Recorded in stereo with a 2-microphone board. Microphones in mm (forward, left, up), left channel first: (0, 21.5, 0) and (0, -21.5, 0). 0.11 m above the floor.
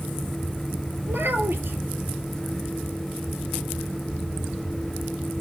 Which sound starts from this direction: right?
A child speaking, at 1.1 s.